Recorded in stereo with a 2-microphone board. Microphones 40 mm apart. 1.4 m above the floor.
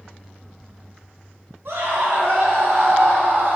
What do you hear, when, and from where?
1.6 s a scream: 75° right (ahead or behind), 3.5 m; by 3.6 s 60° right (ahead or behind), 3 m